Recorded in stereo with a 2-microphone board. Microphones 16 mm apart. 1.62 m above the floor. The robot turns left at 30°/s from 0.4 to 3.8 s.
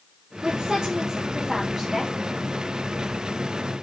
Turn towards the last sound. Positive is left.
turn(degrees=125)